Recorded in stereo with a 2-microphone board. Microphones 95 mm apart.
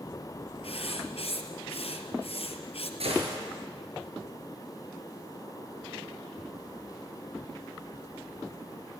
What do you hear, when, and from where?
0.6 s writing: 75° left (ahead or behind), 1.8 m
3.0 s a gunshot: 75° right (ahead or behind), 5.5 m